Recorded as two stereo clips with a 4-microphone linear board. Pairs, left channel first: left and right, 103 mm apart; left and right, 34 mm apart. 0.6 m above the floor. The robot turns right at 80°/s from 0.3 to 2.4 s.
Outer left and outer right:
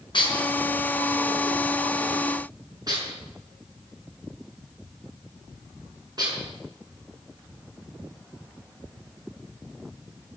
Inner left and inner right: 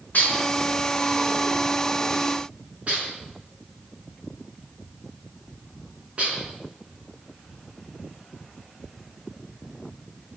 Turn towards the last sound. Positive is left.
turn(degrees=-40)  # may be behind; listen again after turning